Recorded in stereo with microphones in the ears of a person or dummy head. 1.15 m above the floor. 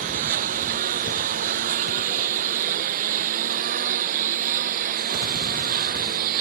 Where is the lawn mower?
50° right (ahead or behind); by 6.4 s 55° right (ahead or behind).